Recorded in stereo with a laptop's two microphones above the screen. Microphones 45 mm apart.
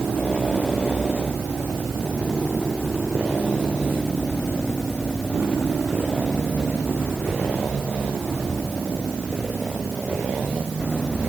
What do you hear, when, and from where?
Only background noise.